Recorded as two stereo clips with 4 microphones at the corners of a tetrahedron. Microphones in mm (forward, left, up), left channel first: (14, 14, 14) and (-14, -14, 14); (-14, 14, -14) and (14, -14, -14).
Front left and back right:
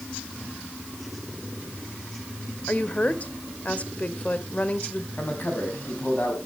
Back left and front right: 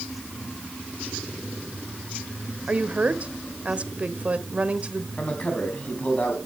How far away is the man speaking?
About 4 m.